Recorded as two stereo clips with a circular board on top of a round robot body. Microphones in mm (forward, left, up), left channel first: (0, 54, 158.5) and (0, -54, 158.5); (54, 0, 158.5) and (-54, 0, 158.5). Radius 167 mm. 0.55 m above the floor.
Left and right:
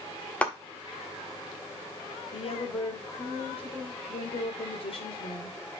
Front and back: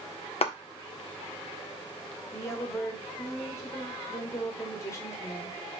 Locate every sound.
0.4 s a clap: 10° left, 1.9 m
2.3 s a woman speaking: 65° left, 3 m